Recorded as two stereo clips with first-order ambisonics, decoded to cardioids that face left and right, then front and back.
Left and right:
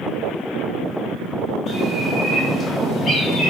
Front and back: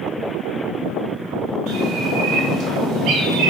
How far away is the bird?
About 3 m.